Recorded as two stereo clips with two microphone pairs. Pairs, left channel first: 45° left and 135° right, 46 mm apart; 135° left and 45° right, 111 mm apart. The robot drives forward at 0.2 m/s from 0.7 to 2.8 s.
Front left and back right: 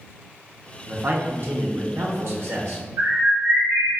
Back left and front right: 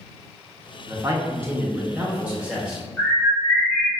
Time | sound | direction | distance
0.9 | a man speaking | 100° right | 0.7 m
3.0 | a bird | 140° right | 0.8 m